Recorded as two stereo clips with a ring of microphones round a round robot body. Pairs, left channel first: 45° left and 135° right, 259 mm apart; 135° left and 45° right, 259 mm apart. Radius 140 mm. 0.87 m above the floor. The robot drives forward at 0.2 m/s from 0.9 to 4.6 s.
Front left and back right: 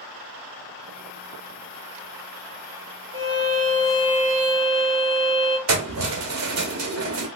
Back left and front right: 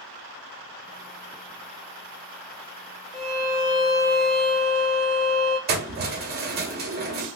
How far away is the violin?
About 1.8 m.